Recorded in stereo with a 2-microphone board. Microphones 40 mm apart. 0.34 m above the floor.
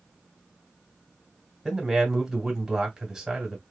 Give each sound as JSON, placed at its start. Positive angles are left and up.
{"t": 1.6, "sound": "a man speaking", "side_deg": -10, "distance_m": 1.4}